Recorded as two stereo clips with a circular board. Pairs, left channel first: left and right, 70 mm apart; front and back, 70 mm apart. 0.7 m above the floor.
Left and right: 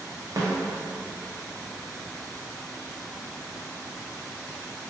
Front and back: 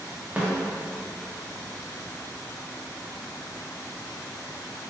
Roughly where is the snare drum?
Right.